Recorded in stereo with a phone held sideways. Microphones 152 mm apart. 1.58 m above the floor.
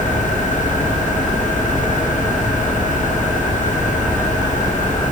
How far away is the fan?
About 5.5 m.